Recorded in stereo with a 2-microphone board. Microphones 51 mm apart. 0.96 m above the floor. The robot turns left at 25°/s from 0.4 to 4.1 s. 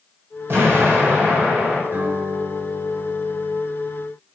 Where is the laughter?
No laughter in this recording.